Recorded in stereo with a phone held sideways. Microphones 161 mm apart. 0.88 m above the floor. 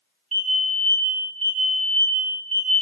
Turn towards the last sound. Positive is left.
turn(degrees=-40)  # may be behind; listen again after turning